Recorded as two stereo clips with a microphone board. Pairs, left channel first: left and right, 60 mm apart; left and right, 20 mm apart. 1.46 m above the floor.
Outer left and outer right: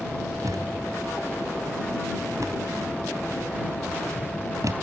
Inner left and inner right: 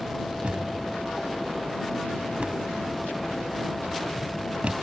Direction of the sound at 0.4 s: 75° right (ahead or behind).